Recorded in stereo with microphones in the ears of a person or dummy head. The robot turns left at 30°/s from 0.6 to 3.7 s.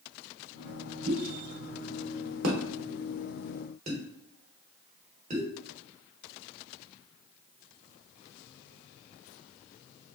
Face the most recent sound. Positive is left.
turn(degrees=-40)  # may be behind; listen again after turning